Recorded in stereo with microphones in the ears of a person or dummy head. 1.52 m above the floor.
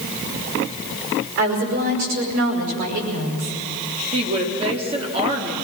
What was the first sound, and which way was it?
A woman speaking, 60° right (ahead or behind).